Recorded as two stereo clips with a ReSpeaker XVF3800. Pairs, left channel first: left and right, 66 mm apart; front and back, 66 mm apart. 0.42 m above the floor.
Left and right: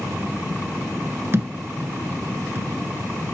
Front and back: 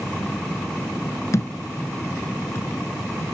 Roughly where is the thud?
Ahead right.